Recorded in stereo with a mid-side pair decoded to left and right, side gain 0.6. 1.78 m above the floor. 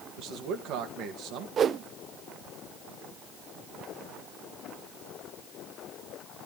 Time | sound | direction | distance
0.2 | a man speaking | 65° right | 2 m
1.6 | a whoosh | 40° right | 0.6 m